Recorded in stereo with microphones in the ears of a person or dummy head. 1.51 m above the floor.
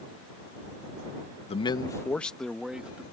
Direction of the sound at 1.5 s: 25° left (ahead or behind).